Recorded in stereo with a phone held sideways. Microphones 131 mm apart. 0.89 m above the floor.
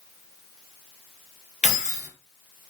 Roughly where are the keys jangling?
Left.